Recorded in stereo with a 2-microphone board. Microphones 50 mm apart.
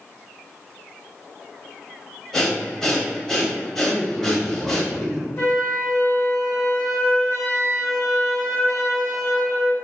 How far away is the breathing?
About 0.6 m.